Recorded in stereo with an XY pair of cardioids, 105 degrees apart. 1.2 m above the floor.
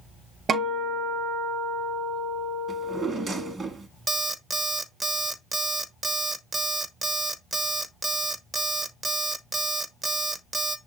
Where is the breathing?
No breathing in this recording.